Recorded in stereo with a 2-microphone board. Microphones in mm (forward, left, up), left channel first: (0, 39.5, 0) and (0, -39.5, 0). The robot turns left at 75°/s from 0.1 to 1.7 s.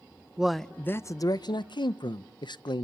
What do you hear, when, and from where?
0.4 s a man speaking: 170° right, 0.6 m; by 2.8 s 95° left, 0.6 m